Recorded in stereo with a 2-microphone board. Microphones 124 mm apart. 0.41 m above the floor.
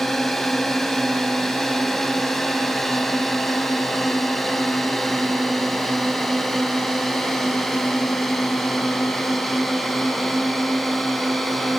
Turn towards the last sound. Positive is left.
turn(degrees=0)  # may be behind; listen again after turning